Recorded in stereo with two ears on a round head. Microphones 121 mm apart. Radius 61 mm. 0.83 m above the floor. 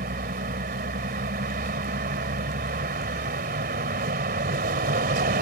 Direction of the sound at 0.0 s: 80° right.